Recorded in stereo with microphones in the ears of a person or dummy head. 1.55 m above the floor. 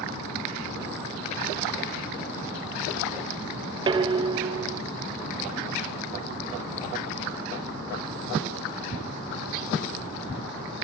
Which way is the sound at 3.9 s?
20° right (ahead or behind).